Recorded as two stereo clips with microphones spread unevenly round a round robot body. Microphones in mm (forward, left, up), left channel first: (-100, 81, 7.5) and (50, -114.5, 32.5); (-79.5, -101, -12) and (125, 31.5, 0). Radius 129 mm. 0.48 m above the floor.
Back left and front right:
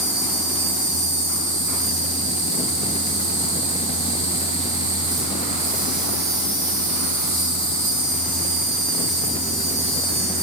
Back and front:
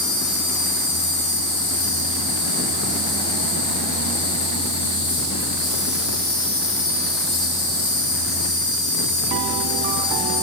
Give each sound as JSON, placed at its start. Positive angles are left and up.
{"t": 0.0, "sound": "an insect", "azimuth_deg": -105, "distance_m": 4.5}